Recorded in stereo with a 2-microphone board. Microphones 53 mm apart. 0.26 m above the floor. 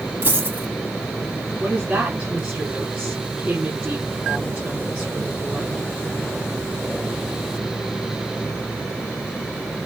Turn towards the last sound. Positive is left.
turn(degrees=-25)  # may be behind; listen again after turning